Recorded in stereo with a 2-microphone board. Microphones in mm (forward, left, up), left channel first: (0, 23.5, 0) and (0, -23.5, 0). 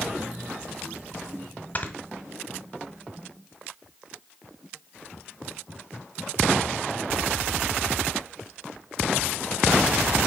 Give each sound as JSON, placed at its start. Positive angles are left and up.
{"t": 1.8, "sound": "snoring", "side_deg": 35, "distance_m": 1.3}